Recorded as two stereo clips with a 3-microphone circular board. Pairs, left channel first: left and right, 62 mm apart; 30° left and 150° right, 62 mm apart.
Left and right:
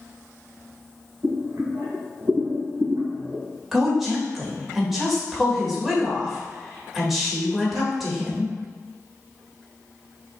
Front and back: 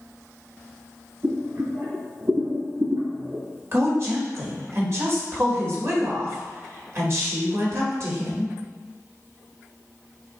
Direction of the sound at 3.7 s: 175° right.